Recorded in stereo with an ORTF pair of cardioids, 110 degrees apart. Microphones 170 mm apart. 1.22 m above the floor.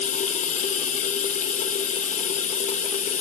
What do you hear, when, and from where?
0.0 s running water: 45° left, 1.1 m